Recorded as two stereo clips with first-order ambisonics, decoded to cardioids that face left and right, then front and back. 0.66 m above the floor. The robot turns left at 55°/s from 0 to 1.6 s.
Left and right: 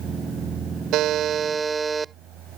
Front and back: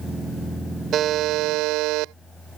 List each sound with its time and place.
0.9 s a buzzer: 125° right; by 2.1 s 165° right